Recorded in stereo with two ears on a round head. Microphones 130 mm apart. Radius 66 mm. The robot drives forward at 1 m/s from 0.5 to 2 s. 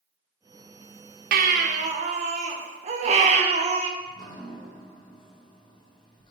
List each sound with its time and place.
1.3 s a baby crying: 65° right (ahead or behind), 0.9 m; by 3.9 s 50° right (ahead or behind), 1.1 m
4.0 s dripping: 30° left (ahead or behind), 1.5 m